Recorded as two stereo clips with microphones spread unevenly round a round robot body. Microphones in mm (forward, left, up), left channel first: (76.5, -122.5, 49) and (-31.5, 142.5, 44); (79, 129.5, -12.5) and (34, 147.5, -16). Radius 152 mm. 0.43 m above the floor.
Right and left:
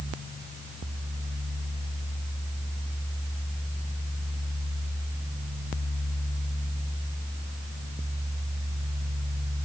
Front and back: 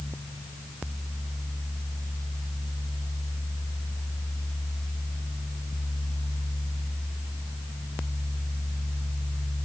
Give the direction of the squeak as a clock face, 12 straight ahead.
I don't hear a squeak.